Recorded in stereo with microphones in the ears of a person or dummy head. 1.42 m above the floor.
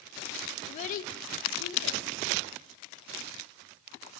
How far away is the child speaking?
About 0.8 m.